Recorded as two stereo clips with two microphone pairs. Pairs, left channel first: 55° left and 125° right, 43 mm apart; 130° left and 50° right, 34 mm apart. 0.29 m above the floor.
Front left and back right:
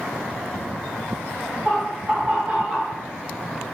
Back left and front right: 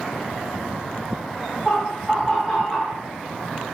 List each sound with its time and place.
1.6 s laughter: 135° right, 1.4 m; by 3.0 s 165° right, 1.8 m